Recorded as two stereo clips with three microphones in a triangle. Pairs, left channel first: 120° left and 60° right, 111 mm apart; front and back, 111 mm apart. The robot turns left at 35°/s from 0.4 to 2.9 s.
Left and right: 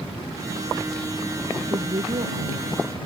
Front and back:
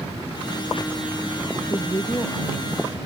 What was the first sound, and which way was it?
A woman speaking, 45° right.